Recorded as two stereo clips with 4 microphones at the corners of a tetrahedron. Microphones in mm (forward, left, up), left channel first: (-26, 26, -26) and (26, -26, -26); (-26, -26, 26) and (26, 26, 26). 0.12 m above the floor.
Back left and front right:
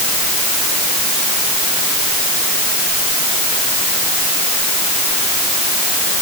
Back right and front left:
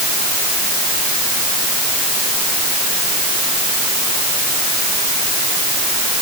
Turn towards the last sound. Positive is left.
No sound to turn to.